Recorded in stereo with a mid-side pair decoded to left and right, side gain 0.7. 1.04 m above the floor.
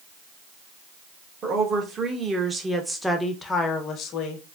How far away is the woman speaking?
About 1.5 m.